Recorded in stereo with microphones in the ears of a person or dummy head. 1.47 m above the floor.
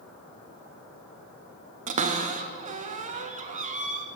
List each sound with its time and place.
1.9 s a cupboard door: 40° right (ahead or behind), 0.9 m